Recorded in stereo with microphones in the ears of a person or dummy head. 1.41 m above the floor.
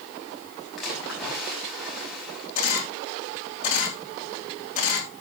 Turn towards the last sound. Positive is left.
turn(degrees=45)  # may be behind; listen again after turning